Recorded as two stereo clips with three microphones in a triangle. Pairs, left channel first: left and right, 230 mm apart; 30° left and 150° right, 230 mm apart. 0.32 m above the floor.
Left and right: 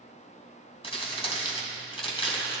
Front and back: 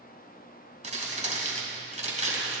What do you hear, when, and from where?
0.8 s crumpling: 155° left, 2.5 m